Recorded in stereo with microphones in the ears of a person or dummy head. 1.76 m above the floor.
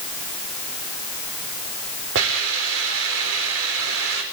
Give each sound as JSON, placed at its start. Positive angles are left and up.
{"t": 2.1, "sound": "a hiss", "side_deg": -70, "distance_m": 4.0}